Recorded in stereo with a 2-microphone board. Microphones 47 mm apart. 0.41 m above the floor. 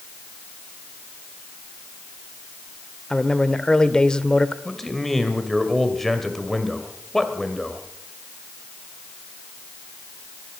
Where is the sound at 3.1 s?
15° left (ahead or behind), 1.0 m.